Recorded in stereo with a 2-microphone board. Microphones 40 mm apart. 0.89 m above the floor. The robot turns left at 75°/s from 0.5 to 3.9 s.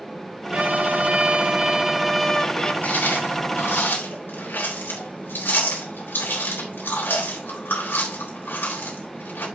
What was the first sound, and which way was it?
A violin, 60° right.